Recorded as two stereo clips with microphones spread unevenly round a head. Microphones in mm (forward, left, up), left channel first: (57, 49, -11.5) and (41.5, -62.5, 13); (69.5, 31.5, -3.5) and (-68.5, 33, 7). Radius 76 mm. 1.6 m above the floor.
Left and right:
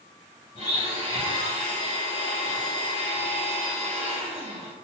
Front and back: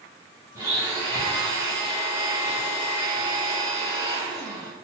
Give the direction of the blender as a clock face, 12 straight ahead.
8 o'clock.